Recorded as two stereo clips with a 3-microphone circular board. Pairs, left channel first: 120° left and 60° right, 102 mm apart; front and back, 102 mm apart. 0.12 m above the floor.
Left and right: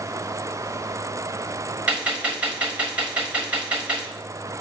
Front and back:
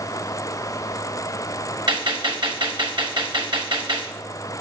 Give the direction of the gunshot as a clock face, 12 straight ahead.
4 o'clock.